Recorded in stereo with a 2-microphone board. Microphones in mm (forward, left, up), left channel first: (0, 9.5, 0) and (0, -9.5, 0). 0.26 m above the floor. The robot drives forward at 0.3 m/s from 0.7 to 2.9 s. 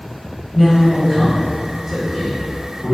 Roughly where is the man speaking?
Centre.